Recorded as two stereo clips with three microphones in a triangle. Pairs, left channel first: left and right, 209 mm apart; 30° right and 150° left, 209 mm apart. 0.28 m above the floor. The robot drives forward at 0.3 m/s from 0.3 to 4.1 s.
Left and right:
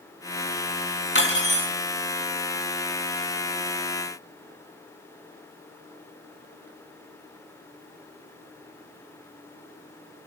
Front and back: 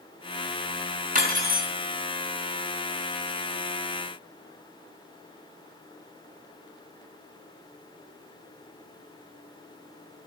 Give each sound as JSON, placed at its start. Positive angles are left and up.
{"t": 1.1, "sound": "cutlery clinking", "azimuth_deg": 105, "distance_m": 1.8}